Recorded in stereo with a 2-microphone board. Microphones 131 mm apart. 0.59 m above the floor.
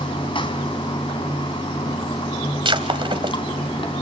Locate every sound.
0.0 s running water: 40° left (ahead or behind), 3 m
2.6 s breaking glass: 40° right (ahead or behind), 1.9 m